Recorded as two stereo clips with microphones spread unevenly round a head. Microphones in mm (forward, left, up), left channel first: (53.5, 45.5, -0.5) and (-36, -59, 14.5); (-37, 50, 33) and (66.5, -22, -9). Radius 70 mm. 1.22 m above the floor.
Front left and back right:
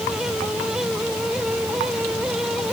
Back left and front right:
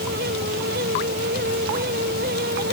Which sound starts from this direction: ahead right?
A fan, at 0.0 s.